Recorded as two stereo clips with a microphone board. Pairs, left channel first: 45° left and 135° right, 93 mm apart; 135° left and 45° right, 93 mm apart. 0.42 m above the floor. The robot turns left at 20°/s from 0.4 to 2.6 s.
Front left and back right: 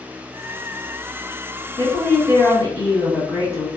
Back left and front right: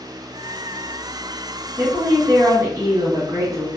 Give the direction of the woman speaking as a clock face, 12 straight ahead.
12 o'clock.